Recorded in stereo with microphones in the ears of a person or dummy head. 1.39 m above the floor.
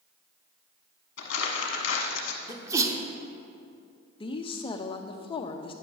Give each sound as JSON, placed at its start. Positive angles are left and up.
{"t": 1.2, "sound": "crumpling", "side_deg": 65, "distance_m": 1.1}
{"t": 2.5, "sound": "a sneeze", "side_deg": -15, "distance_m": 0.9}
{"t": 4.2, "sound": "a woman speaking", "side_deg": 25, "distance_m": 0.7}